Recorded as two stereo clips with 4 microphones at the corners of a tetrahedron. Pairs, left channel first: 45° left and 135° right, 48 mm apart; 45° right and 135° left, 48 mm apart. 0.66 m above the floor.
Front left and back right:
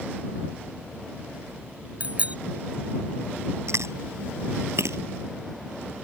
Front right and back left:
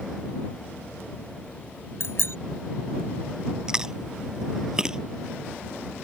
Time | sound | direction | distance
2.0 | a bicycle bell | 75° right | ?
3.7 | chewing | 150° right | ?